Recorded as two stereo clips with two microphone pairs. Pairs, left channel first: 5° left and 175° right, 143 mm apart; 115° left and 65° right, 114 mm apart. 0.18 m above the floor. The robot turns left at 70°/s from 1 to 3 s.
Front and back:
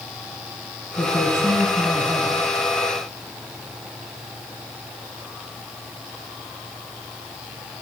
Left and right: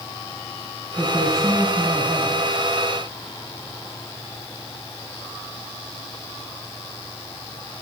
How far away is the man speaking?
About 1.2 m.